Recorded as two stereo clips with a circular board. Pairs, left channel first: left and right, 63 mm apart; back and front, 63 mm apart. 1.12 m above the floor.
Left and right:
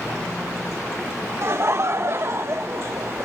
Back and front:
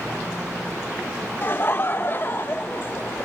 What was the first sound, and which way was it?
Laughter, 130° right.